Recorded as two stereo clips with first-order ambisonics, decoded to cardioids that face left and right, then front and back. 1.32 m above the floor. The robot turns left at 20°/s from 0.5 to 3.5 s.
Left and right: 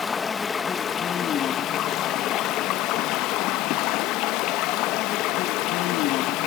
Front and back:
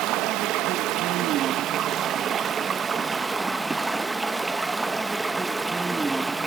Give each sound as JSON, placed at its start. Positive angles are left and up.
{"t": 0.0, "sound": "running water", "azimuth_deg": 160, "distance_m": 0.7}